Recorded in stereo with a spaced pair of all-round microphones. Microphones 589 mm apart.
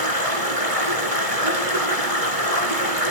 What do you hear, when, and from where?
0.0 s running water: 70° right (ahead or behind), 3.5 m